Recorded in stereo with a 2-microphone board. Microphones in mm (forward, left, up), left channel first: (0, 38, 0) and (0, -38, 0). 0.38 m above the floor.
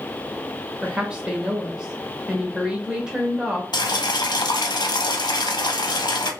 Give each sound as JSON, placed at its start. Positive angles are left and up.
{"t": 0.8, "sound": "a woman speaking", "side_deg": -10, "distance_m": 0.9}
{"t": 3.7, "sound": "boiling", "side_deg": 70, "distance_m": 0.6}